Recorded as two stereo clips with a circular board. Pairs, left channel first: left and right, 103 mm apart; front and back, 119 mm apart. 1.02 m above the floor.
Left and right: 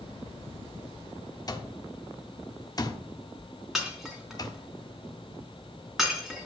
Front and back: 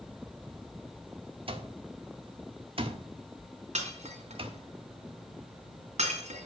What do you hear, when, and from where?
1.5 s an alarm clock: 140° left, 1.4 m
3.8 s breaking glass: 175° right, 3 m